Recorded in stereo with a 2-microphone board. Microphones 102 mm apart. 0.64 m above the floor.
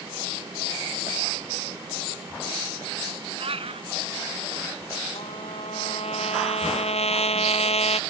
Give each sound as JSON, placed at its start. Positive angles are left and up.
{"t": 3.4, "sound": "a cat meowing", "side_deg": -70}
{"t": 5.2, "sound": "a trumpet", "side_deg": 85}